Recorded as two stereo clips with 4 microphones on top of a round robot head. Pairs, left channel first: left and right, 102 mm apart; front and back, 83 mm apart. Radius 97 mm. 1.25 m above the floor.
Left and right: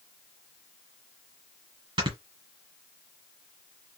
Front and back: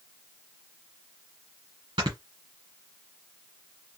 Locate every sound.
2.0 s snoring: 125° right, 1.7 m